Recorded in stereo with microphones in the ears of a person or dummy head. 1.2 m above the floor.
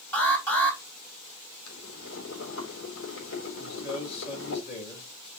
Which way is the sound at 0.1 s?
10° left (ahead or behind).